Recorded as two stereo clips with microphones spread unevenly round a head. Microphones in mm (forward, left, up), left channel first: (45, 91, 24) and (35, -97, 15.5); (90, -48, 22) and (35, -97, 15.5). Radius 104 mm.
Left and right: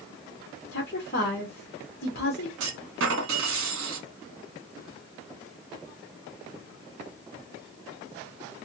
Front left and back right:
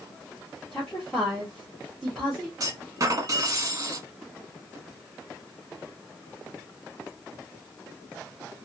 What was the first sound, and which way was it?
A woman speaking, 130° left.